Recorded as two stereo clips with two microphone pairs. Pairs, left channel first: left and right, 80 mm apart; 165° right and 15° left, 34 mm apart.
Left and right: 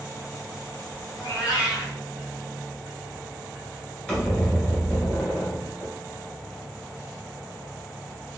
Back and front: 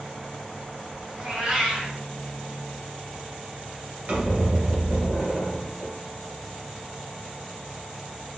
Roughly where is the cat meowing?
Ahead left.